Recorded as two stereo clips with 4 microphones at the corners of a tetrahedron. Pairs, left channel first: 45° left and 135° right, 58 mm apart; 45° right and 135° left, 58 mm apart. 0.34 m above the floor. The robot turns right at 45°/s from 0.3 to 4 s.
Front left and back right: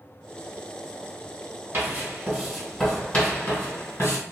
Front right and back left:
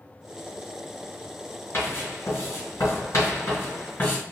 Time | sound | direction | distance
1.7 | writing | 85° right | 1.8 m